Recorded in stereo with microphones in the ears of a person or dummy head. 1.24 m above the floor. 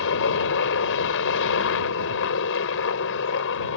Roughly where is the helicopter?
Left.